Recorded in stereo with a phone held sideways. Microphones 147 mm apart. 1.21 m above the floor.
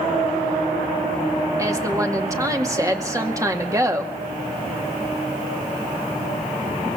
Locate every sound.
1.6 s a woman speaking: 20° right (ahead or behind), 2 m